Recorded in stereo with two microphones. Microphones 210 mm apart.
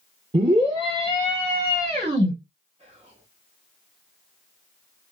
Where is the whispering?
30° right (ahead or behind), 0.8 m.